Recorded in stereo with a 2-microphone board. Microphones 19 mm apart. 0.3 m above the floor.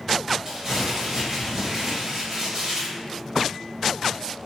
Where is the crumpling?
25° right (ahead or behind), 0.9 m.